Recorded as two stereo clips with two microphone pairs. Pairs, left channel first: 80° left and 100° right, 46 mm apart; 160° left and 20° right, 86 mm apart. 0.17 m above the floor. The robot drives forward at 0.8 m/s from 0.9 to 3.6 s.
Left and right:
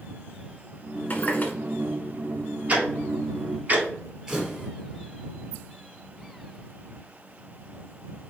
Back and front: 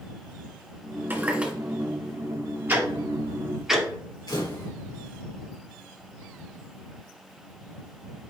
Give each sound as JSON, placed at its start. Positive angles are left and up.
{"t": 1.1, "sound": "a running tap", "azimuth_deg": 40, "distance_m": 1.5}
{"t": 2.7, "sound": "ticking", "azimuth_deg": -70, "distance_m": 2.0}
{"t": 4.3, "sound": "a camera shutter", "azimuth_deg": -175, "distance_m": 4.0}